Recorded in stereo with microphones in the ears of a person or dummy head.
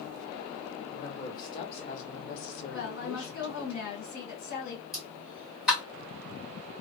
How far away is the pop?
About 1.2 m.